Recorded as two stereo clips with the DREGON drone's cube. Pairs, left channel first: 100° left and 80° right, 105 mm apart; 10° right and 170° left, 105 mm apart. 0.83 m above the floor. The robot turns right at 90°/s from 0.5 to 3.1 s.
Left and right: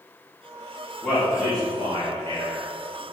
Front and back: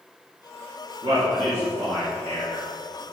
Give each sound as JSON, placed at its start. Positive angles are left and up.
{"t": 1.0, "sound": "a man speaking", "azimuth_deg": -170, "distance_m": 2.5}